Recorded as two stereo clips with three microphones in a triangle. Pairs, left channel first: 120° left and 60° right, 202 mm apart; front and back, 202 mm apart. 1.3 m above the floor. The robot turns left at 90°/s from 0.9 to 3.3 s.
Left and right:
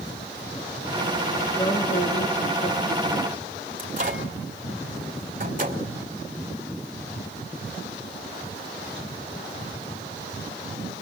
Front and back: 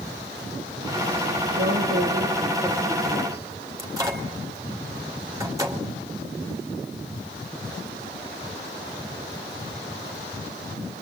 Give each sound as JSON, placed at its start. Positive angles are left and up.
{"t": 1.5, "sound": "a woman speaking", "azimuth_deg": -165, "distance_m": 2.5}
{"t": 3.8, "sound": "a microwave", "azimuth_deg": -105, "distance_m": 2.5}